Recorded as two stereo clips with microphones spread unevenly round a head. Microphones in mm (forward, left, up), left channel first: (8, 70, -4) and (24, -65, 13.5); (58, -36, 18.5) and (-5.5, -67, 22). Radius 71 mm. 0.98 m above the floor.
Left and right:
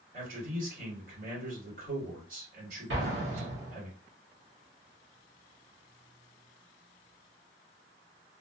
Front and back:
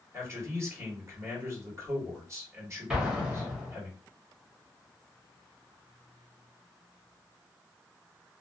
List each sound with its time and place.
0.1 s a man speaking: 110° right, 1.6 m
2.9 s an explosion: 75° right, 1.1 m